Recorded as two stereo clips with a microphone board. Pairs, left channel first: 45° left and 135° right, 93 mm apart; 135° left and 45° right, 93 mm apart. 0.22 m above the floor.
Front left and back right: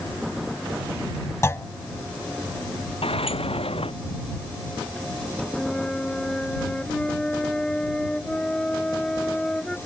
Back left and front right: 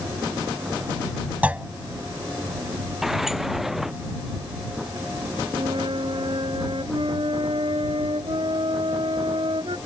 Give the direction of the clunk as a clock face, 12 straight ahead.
11 o'clock.